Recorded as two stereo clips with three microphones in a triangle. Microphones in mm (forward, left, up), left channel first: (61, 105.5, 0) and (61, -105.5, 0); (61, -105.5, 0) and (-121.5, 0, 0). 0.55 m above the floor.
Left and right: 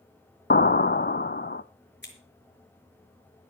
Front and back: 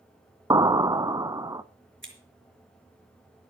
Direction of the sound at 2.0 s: 125° left.